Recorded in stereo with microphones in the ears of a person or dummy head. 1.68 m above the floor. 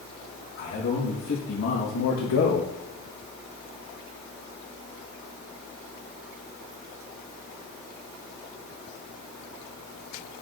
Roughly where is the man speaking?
Left.